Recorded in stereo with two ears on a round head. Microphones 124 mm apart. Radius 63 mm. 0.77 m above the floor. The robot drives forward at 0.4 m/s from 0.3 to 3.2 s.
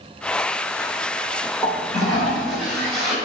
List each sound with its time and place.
1.6 s a toilet flushing: centre (ahead or behind), 2.5 m